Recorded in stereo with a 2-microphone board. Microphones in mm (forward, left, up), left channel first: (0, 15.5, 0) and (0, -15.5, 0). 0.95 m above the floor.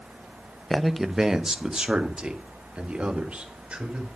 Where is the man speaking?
5° left (ahead or behind), 0.7 m; by 4.1 s 35° right (ahead or behind), 4 m.